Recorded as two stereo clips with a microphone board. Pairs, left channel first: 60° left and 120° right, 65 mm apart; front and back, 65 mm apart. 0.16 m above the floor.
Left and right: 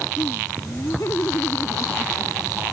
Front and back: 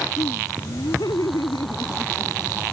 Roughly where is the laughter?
Ahead.